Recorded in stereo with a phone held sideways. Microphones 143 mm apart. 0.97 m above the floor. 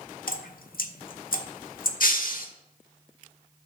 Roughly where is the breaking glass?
Left.